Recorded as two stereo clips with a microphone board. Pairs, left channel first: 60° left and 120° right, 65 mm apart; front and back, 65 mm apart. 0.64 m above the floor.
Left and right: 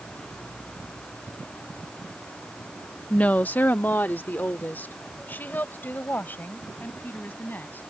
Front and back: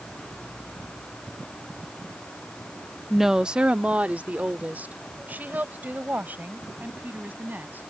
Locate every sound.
3.1 s a woman speaking: 95° left; by 7.9 s 120° left